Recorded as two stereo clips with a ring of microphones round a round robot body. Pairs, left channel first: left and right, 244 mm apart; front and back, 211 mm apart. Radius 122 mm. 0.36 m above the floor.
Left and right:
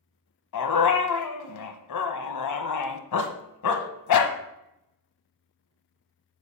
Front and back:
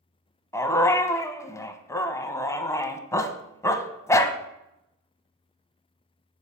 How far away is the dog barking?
About 1.0 m.